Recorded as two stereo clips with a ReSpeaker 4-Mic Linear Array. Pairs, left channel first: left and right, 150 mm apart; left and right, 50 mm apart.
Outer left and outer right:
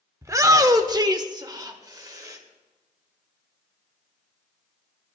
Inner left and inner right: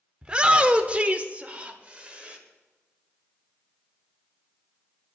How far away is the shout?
About 0.9 m.